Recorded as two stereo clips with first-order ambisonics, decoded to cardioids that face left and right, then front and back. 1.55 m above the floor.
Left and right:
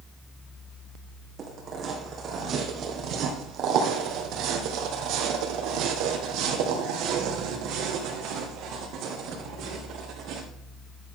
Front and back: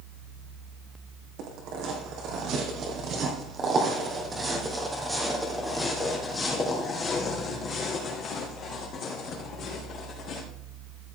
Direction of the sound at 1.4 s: 150° right.